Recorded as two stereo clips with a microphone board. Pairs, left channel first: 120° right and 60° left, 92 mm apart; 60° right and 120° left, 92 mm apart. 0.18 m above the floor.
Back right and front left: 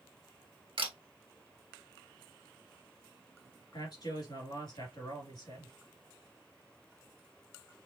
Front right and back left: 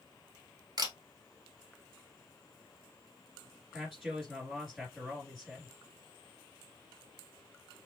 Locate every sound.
0.8 s a camera shutter: 75° left, 1.1 m
3.7 s a man speaking: 150° right, 3 m